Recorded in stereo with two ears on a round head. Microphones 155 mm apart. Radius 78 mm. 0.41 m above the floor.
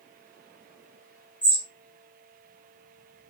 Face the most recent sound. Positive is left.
turn(degrees=10)  # may be behind; listen again after turning